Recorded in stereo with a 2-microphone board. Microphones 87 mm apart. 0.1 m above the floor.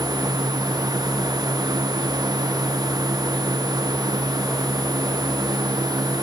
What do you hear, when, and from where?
Only background noise.